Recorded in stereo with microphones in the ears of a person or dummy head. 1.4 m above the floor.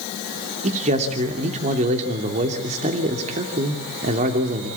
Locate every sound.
0.6 s a man speaking: 40° right (ahead or behind), 3 m